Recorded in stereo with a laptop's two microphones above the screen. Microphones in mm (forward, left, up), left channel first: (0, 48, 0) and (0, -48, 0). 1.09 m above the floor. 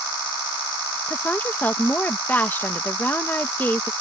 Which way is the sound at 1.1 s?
20° left (ahead or behind).